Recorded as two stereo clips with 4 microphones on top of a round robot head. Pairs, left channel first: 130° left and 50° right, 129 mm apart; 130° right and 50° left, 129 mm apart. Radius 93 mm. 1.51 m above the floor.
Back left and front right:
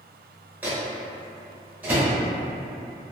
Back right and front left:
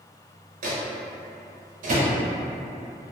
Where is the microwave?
25° left, 0.6 m.